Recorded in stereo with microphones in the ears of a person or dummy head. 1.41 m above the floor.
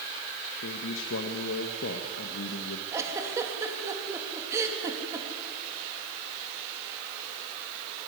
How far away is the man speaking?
About 1.7 m.